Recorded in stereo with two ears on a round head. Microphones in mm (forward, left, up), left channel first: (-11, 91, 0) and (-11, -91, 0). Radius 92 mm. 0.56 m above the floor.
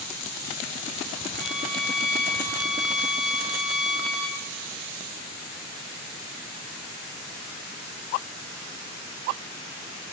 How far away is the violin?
About 3 m.